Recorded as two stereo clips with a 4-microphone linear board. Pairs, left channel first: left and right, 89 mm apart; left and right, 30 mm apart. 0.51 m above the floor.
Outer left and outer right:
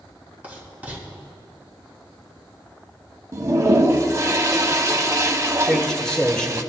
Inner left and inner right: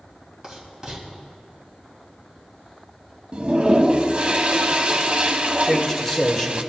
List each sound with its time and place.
0.4 s writing: 20° right (ahead or behind), 3.5 m
3.3 s a toilet flushing: 35° right (ahead or behind), 0.7 m
5.6 s a man speaking: 10° left (ahead or behind), 1.6 m